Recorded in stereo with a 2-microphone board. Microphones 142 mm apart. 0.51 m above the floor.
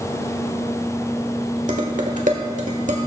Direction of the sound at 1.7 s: 65° right (ahead or behind).